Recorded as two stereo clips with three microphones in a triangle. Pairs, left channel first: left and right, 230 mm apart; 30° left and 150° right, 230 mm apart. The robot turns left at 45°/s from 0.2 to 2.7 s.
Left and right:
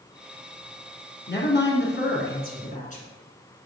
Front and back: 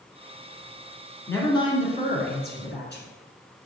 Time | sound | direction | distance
1.3 | a woman speaking | 110° left | 1.9 m